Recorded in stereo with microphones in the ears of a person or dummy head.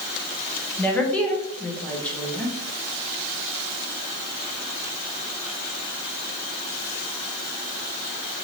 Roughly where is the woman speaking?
Centre.